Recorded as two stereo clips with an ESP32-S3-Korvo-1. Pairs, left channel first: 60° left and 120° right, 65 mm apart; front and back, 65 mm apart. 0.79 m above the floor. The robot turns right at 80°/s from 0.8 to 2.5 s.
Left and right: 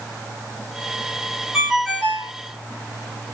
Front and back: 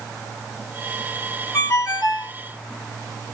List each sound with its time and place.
1.5 s a ringtone: 45° right, 0.9 m; by 2.3 s 20° left, 0.9 m